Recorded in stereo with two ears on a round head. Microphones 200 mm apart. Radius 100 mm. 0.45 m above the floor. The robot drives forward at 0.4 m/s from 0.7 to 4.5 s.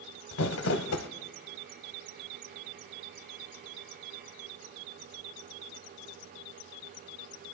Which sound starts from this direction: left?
Crumpling, at 0.3 s.